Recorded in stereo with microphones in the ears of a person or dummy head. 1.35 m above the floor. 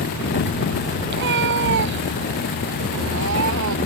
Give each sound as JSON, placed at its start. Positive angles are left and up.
{"t": 1.1, "sound": "a cat meowing", "side_deg": -65}